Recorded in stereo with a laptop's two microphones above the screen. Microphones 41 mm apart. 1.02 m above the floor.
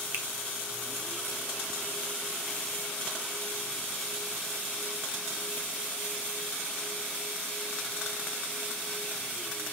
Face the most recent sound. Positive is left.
turn(degrees=-55)  # may be behind; listen again after turning